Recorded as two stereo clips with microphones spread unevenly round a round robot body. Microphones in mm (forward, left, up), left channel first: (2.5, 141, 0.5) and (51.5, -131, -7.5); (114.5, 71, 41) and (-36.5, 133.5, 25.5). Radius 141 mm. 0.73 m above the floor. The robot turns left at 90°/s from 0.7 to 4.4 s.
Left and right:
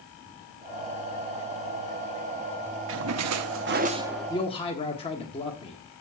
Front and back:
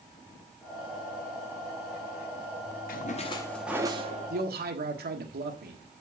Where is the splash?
50° right, 0.8 m; by 4.3 s straight behind, 0.8 m.